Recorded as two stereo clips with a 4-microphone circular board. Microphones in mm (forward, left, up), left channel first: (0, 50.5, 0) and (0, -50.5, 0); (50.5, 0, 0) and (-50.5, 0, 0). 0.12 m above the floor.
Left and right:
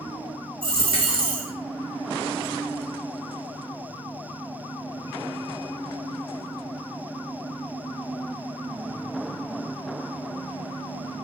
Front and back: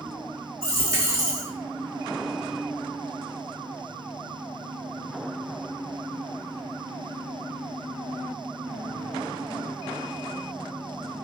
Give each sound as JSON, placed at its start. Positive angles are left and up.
{"t": 0.6, "sound": "a dropped coin", "azimuth_deg": -120, "distance_m": 1.5}